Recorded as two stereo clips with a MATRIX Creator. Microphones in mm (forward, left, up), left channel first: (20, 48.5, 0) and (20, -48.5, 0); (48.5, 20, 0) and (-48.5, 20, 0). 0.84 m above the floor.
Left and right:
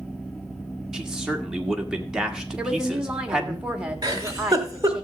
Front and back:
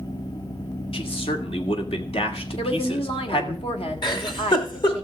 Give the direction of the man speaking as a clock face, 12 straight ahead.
12 o'clock.